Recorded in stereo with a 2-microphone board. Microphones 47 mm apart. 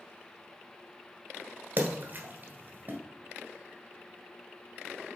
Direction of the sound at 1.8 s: 40° right (ahead or behind).